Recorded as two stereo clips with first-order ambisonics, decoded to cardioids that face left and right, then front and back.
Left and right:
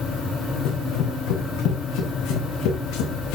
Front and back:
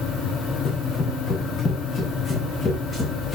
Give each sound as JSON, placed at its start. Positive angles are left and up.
{"t": 0.7, "sound": "running footsteps", "azimuth_deg": 55, "distance_m": 6.0}